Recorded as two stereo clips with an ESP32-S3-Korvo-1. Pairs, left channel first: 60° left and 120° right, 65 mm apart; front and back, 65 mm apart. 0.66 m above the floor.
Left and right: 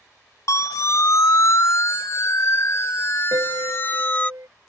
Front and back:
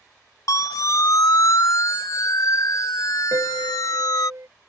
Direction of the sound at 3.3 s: 145° right.